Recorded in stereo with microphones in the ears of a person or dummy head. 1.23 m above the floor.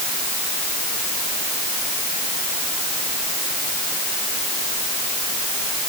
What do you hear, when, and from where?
Only background noise.